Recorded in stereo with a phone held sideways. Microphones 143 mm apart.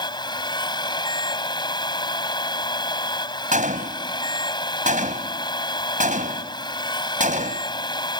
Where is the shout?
I don't hear a shout.